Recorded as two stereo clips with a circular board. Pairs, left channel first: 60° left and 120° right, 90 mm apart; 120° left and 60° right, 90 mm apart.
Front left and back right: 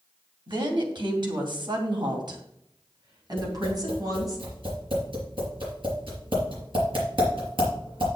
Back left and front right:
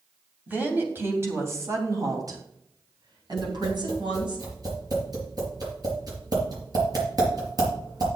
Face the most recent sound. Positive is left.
turn(degrees=-100)